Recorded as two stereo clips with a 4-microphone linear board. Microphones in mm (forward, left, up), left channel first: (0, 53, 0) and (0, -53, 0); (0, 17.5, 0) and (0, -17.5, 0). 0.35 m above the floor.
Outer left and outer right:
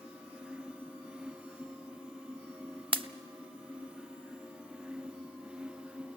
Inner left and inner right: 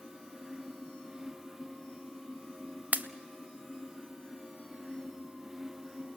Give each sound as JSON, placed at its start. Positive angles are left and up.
{"t": 2.9, "sound": "a pop", "side_deg": -55, "distance_m": 0.6}